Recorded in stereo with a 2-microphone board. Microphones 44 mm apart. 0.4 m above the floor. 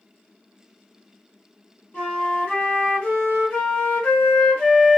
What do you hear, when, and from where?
1.9 s a flute: 35° left (ahead or behind), 1.7 m